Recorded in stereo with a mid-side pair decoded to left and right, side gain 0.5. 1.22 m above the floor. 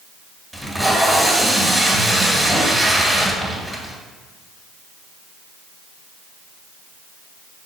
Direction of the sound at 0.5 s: 10° right.